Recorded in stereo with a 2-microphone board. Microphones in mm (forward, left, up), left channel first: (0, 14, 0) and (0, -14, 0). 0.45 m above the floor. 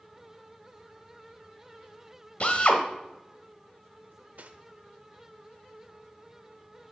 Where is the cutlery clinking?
55° right (ahead or behind), 0.7 m.